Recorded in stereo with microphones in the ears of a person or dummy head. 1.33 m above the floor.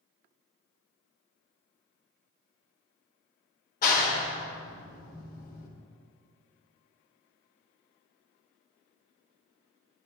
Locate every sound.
3.8 s a clap: 50° left (ahead or behind), 1.3 m